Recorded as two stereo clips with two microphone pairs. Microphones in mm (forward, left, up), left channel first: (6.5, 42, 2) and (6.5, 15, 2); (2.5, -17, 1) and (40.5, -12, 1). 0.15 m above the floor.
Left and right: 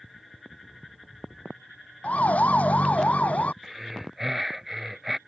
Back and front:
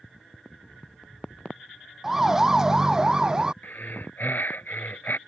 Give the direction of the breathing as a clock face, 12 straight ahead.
6 o'clock.